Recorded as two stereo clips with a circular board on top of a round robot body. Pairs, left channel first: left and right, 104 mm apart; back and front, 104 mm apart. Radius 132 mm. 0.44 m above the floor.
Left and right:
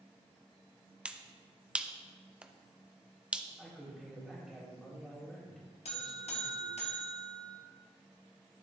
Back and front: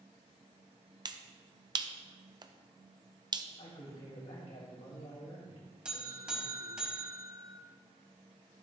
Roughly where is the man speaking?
Behind.